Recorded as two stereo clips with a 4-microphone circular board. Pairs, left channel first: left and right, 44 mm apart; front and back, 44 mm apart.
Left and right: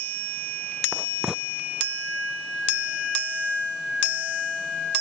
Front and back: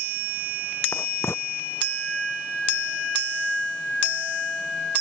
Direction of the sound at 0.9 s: 15° right.